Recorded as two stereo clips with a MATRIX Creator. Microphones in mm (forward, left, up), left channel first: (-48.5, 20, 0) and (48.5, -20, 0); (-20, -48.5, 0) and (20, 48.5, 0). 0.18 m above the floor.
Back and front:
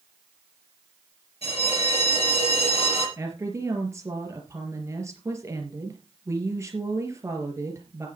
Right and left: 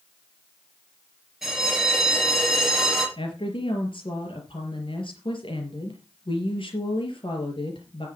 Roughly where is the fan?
I don't hear a fan.